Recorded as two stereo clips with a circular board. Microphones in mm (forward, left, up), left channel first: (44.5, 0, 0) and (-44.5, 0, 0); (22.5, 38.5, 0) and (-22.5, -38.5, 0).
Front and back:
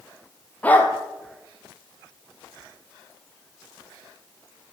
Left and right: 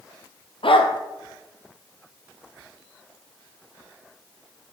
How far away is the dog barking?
About 1.6 m.